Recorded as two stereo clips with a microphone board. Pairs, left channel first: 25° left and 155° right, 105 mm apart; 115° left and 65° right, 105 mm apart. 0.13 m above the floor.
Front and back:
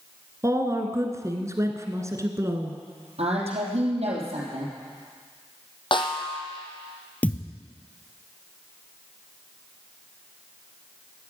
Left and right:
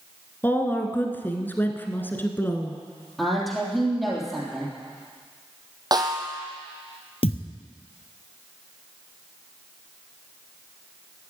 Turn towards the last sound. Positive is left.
turn(degrees=95)